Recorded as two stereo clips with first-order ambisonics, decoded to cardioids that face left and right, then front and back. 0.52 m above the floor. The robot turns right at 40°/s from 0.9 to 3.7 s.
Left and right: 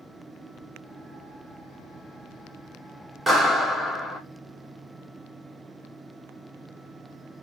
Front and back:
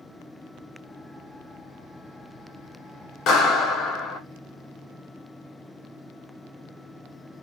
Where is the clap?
5° right, 0.9 m; by 4.2 s 10° left, 0.9 m.